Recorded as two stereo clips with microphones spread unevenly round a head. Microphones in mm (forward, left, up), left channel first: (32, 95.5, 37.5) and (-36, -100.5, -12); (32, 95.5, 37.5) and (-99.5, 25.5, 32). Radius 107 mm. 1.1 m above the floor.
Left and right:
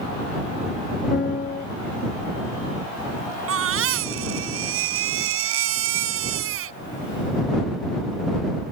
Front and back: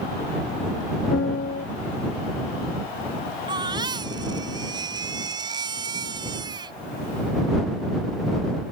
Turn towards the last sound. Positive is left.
turn(degrees=-80)